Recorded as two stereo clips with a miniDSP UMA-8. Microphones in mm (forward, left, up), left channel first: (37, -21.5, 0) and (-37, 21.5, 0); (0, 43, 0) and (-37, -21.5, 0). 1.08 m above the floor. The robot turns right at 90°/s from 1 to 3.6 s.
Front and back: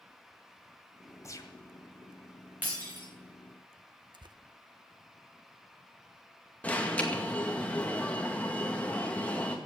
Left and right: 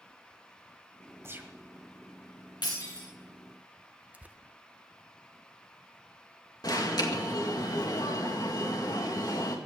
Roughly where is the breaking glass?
Left.